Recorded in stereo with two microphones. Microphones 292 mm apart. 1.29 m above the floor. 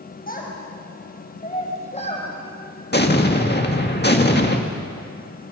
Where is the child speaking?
30° left (ahead or behind), 5.5 m; by 2.3 s 20° left (ahead or behind), 5 m.